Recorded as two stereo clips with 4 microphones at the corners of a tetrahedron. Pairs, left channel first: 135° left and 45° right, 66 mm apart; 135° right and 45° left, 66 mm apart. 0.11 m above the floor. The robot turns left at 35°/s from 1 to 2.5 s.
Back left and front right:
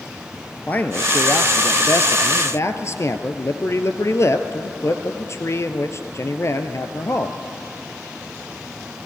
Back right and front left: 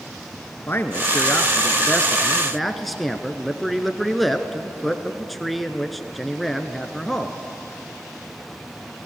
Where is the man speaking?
175° right, 1.5 m; by 7.4 s 135° left, 1.5 m.